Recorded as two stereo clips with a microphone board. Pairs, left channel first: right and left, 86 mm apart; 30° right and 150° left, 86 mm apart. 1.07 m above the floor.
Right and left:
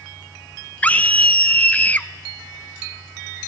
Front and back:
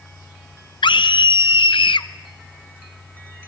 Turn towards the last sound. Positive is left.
turn(degrees=-20)